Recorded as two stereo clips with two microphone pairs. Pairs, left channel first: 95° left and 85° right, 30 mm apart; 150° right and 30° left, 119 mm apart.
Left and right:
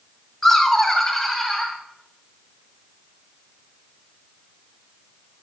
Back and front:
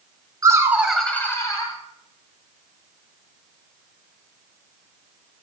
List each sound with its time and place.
0.4 s laughter: 20° left, 1.2 m; by 1.8 s straight behind, 1.4 m